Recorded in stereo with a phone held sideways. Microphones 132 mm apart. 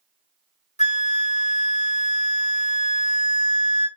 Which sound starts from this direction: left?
A flute, at 0.8 s.